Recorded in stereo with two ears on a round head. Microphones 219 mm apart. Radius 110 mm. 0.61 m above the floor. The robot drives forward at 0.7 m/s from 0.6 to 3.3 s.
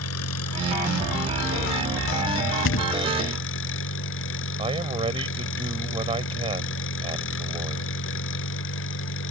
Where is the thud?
50° left (ahead or behind); by 3.0 s 60° left (ahead or behind).